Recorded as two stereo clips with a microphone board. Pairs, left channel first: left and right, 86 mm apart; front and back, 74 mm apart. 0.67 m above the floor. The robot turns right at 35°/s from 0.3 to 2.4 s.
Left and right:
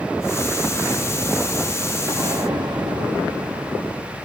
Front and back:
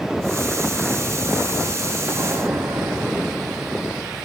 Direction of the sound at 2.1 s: 135° right.